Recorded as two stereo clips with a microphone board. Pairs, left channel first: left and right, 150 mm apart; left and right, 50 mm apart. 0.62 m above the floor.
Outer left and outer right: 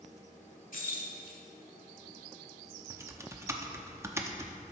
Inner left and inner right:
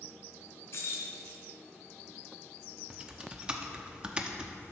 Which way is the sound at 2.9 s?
20° right (ahead or behind).